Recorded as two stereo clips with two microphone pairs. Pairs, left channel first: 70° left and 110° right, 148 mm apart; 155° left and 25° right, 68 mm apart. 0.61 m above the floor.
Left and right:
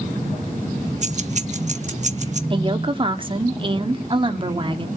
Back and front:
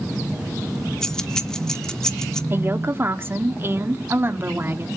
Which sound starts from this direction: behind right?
Keys jangling, at 1.0 s.